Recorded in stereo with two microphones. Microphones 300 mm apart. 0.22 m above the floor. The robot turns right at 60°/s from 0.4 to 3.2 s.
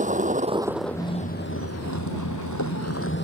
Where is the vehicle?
25° right; by 3.2 s 145° left.